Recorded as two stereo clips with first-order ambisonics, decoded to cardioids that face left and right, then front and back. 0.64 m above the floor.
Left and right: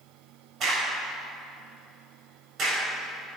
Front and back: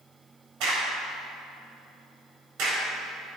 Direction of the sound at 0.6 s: 150° right.